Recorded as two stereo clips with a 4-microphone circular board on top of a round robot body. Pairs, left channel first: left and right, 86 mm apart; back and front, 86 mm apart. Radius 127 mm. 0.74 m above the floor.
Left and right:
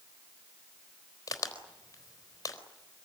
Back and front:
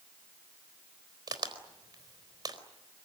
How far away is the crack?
About 4 m.